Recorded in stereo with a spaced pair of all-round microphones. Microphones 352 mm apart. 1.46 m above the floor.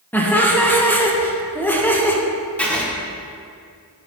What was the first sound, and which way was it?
Laughter, 5° left (ahead or behind).